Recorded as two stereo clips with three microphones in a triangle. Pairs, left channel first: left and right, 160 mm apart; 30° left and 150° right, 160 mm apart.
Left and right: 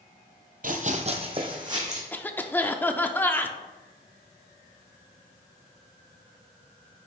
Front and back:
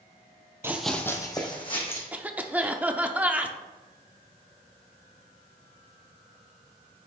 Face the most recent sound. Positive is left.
turn(degrees=145)